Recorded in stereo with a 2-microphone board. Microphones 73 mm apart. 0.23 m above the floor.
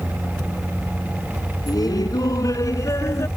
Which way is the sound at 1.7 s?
60° left (ahead or behind).